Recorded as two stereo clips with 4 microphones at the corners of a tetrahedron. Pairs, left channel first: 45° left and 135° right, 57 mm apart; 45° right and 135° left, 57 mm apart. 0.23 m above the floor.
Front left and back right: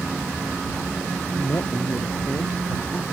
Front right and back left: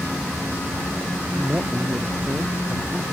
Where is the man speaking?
75° left.